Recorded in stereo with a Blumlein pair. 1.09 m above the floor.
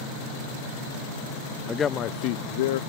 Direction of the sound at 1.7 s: 15° left.